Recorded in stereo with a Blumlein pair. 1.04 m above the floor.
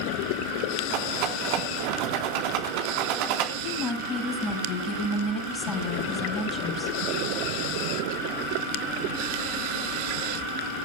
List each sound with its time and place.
0.9 s a rattle: 45° right, 4 m
3.6 s a woman speaking: 20° left, 6 m